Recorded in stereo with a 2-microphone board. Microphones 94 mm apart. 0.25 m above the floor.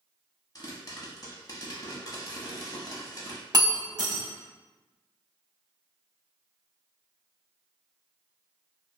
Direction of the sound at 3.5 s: 45° right (ahead or behind).